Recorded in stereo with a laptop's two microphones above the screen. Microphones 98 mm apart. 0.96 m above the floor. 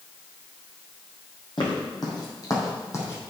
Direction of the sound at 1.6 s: 50° left (ahead or behind).